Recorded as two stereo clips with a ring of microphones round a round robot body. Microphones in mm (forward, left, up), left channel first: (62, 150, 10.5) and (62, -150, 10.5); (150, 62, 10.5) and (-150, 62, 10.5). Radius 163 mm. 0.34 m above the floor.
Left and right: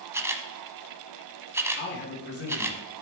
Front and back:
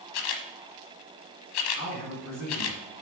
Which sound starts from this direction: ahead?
A camera shutter, at 0.1 s.